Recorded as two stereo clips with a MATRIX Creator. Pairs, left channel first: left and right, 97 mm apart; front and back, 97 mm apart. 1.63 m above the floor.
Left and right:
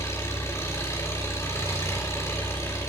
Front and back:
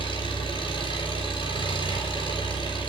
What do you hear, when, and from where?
0.0 s an engine running: 25° left, 5.5 m